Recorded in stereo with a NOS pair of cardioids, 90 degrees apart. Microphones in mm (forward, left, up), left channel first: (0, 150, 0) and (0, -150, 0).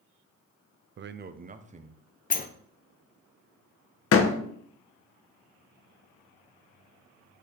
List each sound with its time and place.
1.0 s a man speaking: 40° right, 0.6 m; by 2.0 s 20° right, 1.1 m
2.3 s a sliding door: 30° left, 0.7 m
4.1 s a door slam: 50° left, 1.1 m